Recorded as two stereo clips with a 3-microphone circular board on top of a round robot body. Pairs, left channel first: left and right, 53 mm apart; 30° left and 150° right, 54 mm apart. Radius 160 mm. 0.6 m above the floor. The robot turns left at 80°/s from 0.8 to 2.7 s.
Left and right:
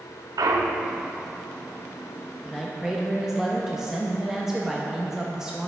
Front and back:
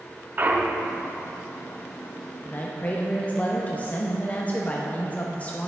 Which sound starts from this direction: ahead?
A man speaking, at 2.4 s.